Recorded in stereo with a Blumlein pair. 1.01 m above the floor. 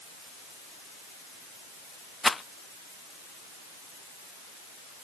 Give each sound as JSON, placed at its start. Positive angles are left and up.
{"t": 2.2, "sound": "a rattle", "azimuth_deg": 10}